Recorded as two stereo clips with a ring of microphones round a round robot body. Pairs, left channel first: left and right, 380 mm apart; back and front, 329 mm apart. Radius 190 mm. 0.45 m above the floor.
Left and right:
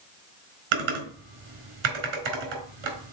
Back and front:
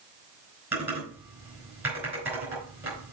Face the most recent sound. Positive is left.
turn(degrees=-85)